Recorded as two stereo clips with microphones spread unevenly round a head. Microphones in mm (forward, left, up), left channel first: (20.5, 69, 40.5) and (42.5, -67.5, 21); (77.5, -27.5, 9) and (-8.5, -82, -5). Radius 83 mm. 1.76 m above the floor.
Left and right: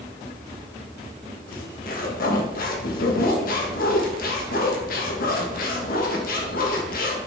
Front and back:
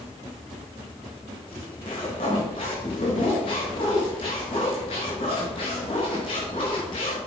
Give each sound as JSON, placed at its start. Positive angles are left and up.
{"t": 1.5, "sound": "a zipper", "azimuth_deg": 85, "distance_m": 2.0}